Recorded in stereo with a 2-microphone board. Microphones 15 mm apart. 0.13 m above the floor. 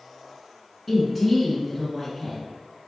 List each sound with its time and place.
0.9 s a woman speaking: 10° right (ahead or behind), 1.3 m